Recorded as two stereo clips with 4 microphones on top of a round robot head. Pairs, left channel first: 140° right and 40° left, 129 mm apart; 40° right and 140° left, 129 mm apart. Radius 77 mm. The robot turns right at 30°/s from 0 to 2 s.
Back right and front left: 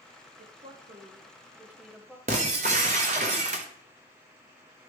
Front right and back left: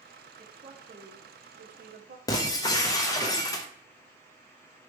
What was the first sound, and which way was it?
A woman speaking, 80° left.